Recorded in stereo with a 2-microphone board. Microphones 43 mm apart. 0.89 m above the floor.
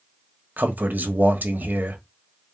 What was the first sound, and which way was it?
A man speaking, 45° right (ahead or behind).